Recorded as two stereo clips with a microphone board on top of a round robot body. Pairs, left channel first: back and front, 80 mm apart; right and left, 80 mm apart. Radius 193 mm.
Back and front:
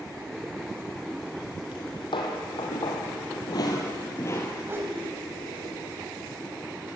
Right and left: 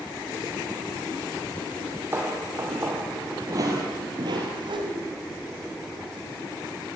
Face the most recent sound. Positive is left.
turn(degrees=60)